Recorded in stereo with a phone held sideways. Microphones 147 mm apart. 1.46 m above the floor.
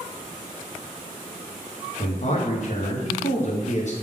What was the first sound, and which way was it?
A man speaking, 50° left (ahead or behind).